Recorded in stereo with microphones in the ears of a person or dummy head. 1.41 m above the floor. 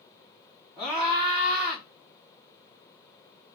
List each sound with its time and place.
0.8 s a scream: 5° right (ahead or behind), 2.5 m